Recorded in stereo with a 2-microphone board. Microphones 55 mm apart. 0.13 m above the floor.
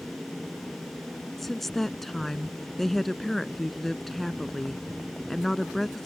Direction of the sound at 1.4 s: 5° left (ahead or behind).